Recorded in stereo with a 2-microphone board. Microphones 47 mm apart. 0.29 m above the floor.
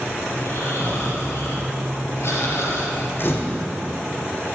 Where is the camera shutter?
50° left (ahead or behind), 3.5 m.